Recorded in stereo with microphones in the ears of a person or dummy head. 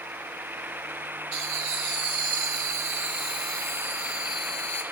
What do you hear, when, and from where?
1.3 s laughter: 65° right (ahead or behind), 3 m; by 4.8 s 10° left (ahead or behind), 2.5 m